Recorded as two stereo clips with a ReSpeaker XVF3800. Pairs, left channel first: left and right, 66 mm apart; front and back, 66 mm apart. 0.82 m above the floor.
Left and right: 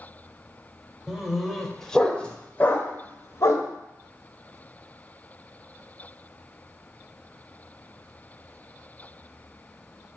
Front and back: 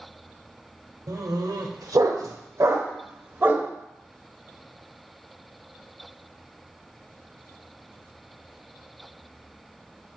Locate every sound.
1.1 s a dog barking: 170° right, 1.6 m; by 3.7 s 120° left, 1.5 m